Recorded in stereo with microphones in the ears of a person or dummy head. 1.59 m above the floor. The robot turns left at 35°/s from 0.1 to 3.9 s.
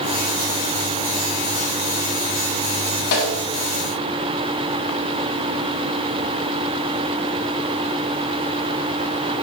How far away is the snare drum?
About 3 m.